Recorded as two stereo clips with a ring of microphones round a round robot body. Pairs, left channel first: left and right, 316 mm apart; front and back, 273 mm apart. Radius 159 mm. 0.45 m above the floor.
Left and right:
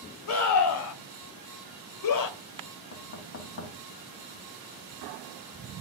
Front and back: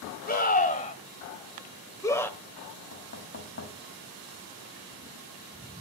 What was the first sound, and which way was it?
A scream, 55° left.